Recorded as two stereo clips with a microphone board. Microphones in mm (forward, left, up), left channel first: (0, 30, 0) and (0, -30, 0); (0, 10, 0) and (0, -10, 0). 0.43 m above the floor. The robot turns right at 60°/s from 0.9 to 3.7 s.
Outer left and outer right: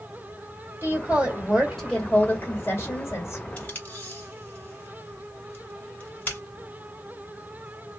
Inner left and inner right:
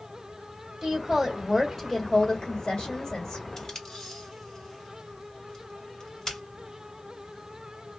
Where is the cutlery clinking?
No cutlery clinking in this recording.